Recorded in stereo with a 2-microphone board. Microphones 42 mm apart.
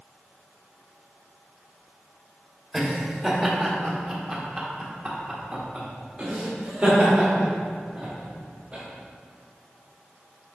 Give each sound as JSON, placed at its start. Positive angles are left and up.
{"t": 2.7, "sound": "laughter", "side_deg": 5, "distance_m": 1.5}